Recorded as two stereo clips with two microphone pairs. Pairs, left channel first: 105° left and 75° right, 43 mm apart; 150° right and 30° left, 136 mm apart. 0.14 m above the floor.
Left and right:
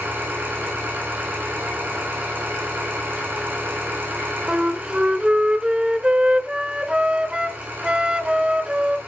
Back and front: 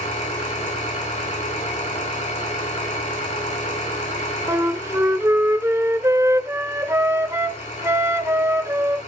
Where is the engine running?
120° right, 9.5 m.